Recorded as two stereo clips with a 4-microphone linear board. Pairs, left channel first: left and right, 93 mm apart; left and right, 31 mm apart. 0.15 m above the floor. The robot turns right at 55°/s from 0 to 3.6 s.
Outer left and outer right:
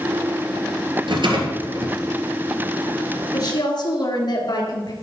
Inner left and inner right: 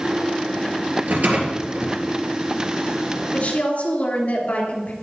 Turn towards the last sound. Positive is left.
turn(degrees=55)  # may be behind; listen again after turning